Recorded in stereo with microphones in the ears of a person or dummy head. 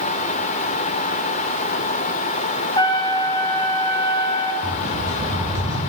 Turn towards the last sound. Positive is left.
turn(degrees=-20)  # may be behind; listen again after turning